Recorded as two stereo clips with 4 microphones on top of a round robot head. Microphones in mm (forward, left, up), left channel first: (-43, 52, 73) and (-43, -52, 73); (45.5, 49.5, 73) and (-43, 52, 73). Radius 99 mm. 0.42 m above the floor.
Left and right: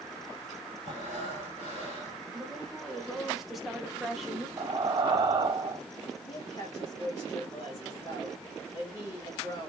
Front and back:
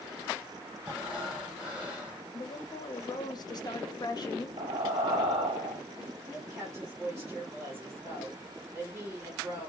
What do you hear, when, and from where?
0.8 s breathing: 100° left, 3 m
2.3 s a woman speaking: straight ahead, 1.0 m
4.6 s breathing: 140° right, 0.7 m
6.3 s a woman speaking: 130° left, 2 m